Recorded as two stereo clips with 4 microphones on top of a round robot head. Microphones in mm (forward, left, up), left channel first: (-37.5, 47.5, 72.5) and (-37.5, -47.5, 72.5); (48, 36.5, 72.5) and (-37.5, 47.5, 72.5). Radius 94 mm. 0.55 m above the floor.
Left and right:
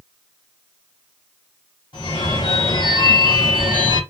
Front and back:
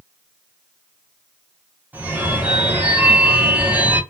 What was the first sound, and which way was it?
A phone ringing, 105° left.